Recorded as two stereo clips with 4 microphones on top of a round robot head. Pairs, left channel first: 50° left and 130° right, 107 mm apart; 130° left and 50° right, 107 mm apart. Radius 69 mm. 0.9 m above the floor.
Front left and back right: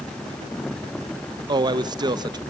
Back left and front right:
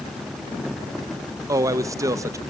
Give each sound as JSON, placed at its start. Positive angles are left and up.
{"t": 1.5, "sound": "a man speaking", "azimuth_deg": -100, "distance_m": 1.2}